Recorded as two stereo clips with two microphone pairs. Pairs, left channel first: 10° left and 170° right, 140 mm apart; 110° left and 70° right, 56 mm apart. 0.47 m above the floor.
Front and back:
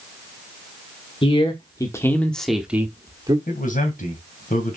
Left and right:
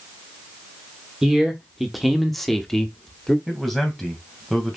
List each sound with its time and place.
1.2 s a man speaking: 10° left, 1.5 m; by 3.4 s 175° right, 1.3 m
3.5 s a man speaking: 20° left, 2.5 m